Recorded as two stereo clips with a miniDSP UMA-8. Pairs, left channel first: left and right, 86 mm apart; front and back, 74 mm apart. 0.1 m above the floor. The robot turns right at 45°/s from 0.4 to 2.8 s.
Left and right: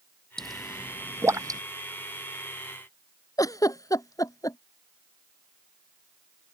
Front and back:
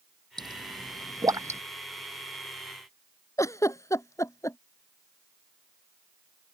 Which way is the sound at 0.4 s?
175° left.